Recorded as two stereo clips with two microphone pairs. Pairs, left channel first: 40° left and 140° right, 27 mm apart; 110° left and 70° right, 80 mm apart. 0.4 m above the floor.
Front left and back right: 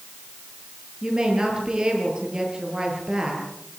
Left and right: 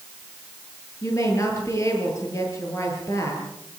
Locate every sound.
1.0 s a woman speaking: 160° left, 8.5 m